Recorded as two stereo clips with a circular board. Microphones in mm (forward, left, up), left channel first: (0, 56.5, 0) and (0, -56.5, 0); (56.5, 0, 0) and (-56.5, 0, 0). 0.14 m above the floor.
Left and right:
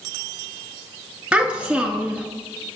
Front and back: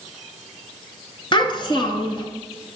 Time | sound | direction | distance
1.3 | a child speaking | 15° right | 1.2 m